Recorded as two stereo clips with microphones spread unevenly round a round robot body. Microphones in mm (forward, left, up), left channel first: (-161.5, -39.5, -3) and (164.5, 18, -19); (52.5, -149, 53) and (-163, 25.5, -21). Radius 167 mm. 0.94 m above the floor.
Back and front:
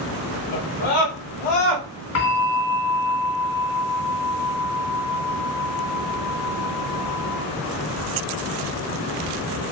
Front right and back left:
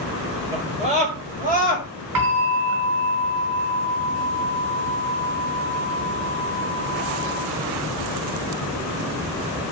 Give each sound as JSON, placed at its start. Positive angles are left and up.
{"t": 0.5, "sound": "a scream", "azimuth_deg": -150, "distance_m": 4.0}
{"t": 2.1, "sound": "a bell", "azimuth_deg": 145, "distance_m": 3.5}